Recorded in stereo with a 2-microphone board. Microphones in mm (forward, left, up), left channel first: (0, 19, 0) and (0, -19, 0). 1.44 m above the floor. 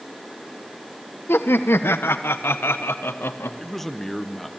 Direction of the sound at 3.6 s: 5° left (ahead or behind).